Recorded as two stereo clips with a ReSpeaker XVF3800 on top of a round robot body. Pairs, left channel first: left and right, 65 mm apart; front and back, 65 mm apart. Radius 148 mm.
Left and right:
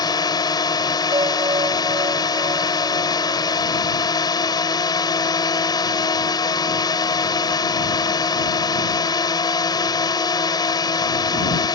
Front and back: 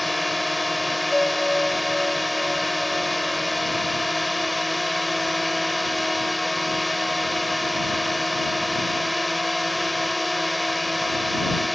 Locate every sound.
0.0 s a drone: 90° left
1.1 s a bell: 85° right